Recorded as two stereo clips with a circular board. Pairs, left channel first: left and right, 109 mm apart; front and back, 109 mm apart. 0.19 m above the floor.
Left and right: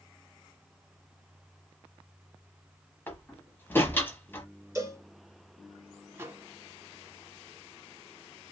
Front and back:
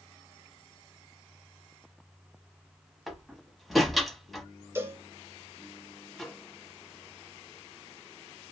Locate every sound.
3.1 s a door slam: 90° left, 0.9 m
4.8 s a cowbell: 130° right, 1.6 m
6.1 s a microwave: 75° right, 0.8 m